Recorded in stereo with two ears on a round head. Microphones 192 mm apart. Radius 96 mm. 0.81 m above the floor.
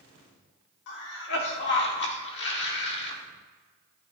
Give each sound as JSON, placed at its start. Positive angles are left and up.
{"t": 0.9, "sound": "a cough", "side_deg": 55, "distance_m": 1.6}